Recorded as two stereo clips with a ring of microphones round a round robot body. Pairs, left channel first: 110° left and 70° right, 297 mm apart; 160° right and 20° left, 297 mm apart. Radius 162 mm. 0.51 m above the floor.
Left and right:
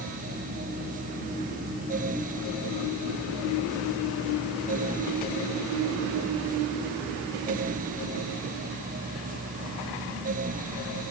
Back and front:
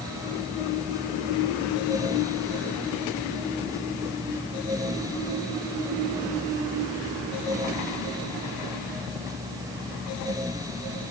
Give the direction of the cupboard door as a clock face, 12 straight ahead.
No cupboard door in this recording.